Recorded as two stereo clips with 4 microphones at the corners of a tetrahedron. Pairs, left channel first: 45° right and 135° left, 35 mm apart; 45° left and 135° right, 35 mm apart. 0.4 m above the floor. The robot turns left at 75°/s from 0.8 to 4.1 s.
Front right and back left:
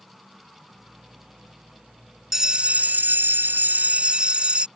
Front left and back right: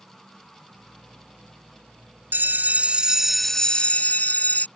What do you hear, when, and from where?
2.3 s a bell: 145° right; by 4.7 s 80° left